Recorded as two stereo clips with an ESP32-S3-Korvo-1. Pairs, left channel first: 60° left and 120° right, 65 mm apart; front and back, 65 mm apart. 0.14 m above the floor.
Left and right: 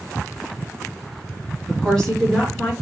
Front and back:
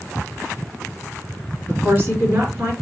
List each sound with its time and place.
1.7 s a woman speaking: 135° left, 2 m